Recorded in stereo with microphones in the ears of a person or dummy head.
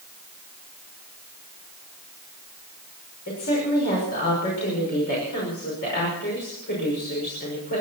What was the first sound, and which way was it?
A woman speaking, 50° left (ahead or behind).